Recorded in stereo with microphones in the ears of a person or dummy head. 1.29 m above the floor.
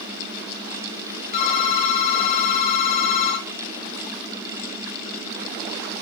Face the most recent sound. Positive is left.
turn(degrees=35)  # may be behind; listen again after turning